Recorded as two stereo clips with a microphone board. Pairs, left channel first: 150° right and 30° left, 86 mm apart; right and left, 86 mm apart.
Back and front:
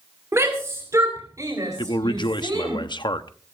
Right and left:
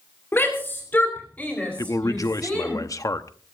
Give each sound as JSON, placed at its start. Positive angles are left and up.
{"t": 0.3, "sound": "a shout", "azimuth_deg": -20, "distance_m": 3.0}
{"t": 1.8, "sound": "a man speaking", "azimuth_deg": -135, "distance_m": 0.9}